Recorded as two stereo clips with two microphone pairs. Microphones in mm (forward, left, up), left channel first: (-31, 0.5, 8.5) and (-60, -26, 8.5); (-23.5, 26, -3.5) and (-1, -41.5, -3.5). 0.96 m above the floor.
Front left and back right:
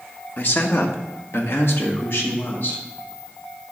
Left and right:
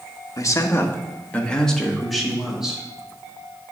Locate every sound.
0.4 s a man speaking: 75° left, 1.1 m; by 2.8 s 10° left, 2 m